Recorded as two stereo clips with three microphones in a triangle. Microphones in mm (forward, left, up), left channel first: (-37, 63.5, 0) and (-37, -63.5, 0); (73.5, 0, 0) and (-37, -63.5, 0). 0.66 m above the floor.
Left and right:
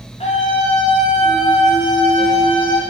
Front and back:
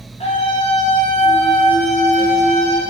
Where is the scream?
60° left, 5 m; by 2.8 s 45° left, 5 m.